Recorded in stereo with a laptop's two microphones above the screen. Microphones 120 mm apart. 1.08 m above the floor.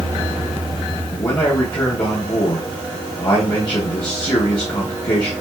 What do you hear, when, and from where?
1.1 s a man speaking: 35° left (ahead or behind), 0.7 m